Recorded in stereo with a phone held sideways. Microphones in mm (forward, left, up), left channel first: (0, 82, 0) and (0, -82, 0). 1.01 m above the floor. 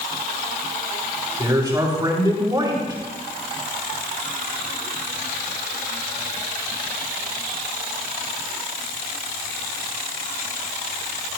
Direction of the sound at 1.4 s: 25° right (ahead or behind).